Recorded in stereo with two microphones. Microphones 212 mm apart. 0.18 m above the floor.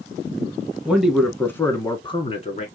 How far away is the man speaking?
About 1.4 m.